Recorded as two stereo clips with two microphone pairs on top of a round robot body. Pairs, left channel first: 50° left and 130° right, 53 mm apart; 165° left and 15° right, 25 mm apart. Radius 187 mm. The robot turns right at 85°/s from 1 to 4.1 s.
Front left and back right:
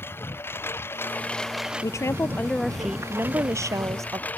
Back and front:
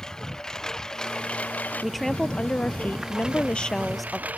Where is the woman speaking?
60° left; by 4.3 s 105° right.